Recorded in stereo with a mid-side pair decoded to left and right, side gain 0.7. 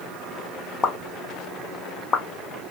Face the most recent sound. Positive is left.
turn(degrees=30)